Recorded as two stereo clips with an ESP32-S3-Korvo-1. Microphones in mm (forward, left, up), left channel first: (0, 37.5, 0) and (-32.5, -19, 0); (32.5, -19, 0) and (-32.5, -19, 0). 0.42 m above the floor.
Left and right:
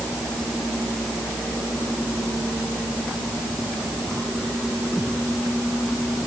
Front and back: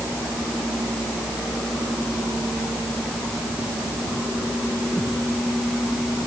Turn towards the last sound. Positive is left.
No sound to turn to.